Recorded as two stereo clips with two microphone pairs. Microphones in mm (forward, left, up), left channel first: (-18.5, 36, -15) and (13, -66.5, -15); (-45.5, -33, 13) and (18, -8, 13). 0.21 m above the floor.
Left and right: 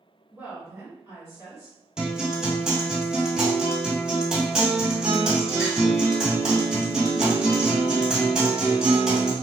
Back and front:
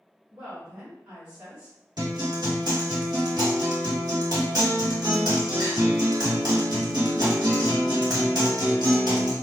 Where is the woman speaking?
40° right, 1.4 m.